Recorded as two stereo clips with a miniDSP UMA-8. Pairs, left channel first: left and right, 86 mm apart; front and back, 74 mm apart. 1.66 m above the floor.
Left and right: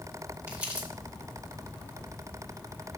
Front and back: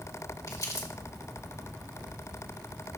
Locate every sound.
0.5 s crumpling: 20° right, 2.0 m